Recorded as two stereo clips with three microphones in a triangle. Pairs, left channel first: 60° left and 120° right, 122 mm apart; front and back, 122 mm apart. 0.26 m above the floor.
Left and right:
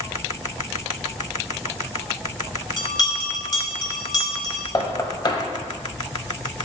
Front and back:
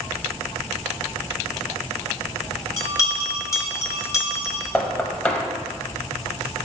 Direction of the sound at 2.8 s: 40° left.